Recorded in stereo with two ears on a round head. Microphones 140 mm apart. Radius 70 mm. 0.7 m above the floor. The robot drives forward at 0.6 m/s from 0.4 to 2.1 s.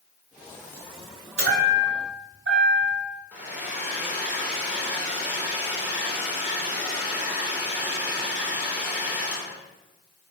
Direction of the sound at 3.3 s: 10° right (ahead or behind).